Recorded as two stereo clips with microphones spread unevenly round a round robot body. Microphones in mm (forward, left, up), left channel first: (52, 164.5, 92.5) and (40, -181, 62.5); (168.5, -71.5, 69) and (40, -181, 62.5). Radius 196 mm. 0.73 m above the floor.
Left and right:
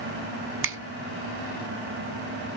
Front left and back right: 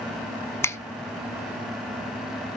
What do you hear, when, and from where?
0.6 s a finger snap: 35° right, 1.1 m